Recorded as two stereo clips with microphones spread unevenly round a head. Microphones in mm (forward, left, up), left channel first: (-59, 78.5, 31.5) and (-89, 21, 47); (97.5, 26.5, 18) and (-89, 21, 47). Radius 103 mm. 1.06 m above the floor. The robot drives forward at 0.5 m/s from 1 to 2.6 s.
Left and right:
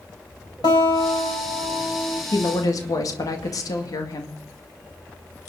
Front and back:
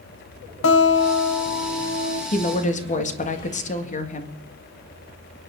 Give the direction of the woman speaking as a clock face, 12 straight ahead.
11 o'clock.